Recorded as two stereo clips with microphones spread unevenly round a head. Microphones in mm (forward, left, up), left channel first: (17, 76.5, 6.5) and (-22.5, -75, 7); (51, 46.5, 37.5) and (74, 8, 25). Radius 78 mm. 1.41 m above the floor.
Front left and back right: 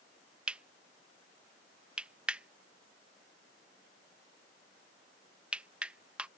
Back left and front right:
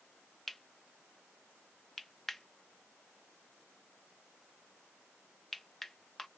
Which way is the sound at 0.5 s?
Straight behind.